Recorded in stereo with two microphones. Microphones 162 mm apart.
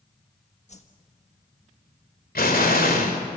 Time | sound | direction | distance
0.7 | a whoosh | 45° left (ahead or behind) | 1.4 m
2.4 | an explosion | 65° left (ahead or behind) | 2.5 m